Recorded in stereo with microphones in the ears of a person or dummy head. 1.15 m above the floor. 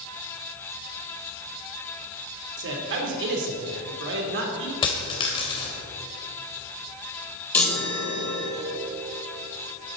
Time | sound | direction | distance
2.6 | a man speaking | 55° right (ahead or behind) | 3 m
4.8 | a dropped coin | 25° left (ahead or behind) | 2 m
7.5 | a chime | 10° left (ahead or behind) | 3 m